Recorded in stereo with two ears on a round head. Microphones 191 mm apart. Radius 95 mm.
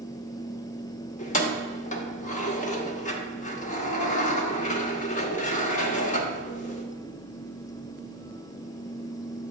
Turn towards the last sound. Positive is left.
turn(degrees=35)  # may be behind; listen again after turning